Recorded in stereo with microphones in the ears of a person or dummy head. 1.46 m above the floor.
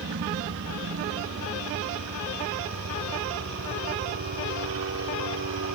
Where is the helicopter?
60° right (ahead or behind); by 5.7 s 70° right (ahead or behind).